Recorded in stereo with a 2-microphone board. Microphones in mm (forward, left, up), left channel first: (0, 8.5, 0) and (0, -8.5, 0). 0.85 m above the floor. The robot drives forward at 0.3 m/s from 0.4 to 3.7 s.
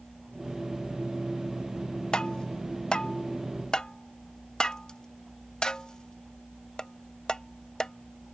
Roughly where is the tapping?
Left.